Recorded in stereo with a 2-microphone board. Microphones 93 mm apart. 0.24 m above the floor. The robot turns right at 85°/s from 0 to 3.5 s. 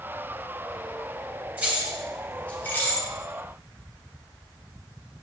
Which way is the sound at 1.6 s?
15° right (ahead or behind).